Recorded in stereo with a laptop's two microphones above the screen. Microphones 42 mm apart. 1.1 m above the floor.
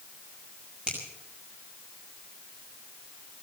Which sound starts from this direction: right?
A finger snap, at 0.9 s.